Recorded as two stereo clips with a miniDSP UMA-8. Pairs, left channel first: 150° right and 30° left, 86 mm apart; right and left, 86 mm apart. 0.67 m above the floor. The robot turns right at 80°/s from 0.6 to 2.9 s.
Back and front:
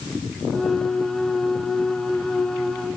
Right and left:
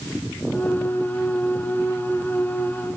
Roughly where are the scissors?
No scissors in this recording.